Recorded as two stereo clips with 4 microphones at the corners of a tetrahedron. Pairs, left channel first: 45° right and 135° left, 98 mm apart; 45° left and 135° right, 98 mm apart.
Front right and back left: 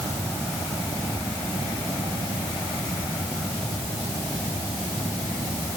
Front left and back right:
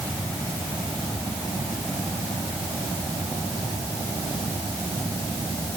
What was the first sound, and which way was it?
Only background noise.